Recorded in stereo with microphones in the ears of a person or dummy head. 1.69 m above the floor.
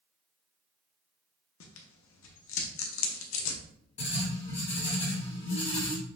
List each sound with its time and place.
1.6 s tearing paper: 75° left (ahead or behind), 0.7 m
4.0 s writing: 35° left (ahead or behind), 1.7 m